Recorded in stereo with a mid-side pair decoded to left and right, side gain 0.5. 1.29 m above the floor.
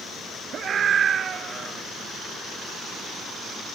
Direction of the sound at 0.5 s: 45° right.